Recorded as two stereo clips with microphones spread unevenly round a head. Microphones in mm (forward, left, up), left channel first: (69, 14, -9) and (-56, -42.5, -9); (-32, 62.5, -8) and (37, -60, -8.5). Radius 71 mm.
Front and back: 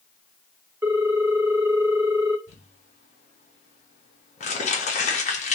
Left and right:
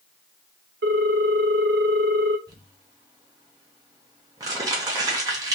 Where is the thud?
No thud in this recording.